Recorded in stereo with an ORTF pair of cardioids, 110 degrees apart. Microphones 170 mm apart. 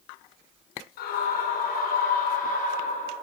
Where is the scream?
70° left, 4.5 m; by 3.1 s 50° left, 4 m.